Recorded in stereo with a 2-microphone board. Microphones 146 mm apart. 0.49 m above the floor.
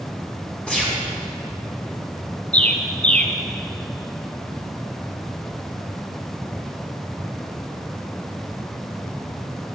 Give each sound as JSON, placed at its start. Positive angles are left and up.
{"t": 0.7, "sound": "a gunshot", "side_deg": 5, "distance_m": 4.0}
{"t": 2.5, "sound": "a bird", "side_deg": 10, "distance_m": 1.1}